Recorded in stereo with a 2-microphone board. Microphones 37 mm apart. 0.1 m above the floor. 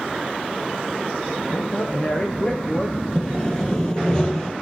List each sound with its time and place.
1.5 s a man speaking: 35° left (ahead or behind), 3 m
3.1 s sawing: 20° left (ahead or behind), 2.5 m